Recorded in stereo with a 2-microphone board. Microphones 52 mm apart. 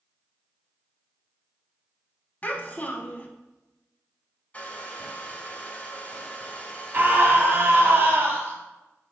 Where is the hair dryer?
25° left (ahead or behind), 0.8 m.